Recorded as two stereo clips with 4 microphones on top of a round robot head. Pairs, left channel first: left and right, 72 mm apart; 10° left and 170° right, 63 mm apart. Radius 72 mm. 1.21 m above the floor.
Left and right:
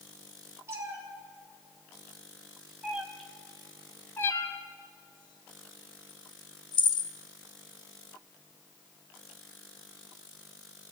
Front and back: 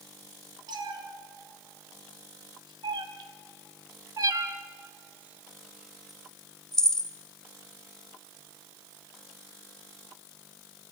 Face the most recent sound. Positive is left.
turn(degrees=85)